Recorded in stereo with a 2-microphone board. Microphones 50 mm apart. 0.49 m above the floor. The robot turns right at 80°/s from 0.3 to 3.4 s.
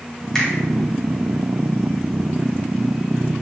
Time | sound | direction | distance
0.3 | a finger snap | 15° left (ahead or behind) | 2 m